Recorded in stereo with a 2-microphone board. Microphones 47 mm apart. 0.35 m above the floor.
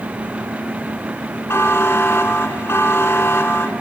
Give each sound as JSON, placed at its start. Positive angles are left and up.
{"t": 1.5, "sound": "a buzzer", "side_deg": 65, "distance_m": 3.5}